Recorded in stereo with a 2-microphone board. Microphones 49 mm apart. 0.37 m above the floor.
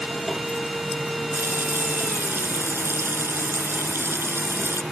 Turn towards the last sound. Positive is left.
turn(degrees=-55)  # may be behind; listen again after turning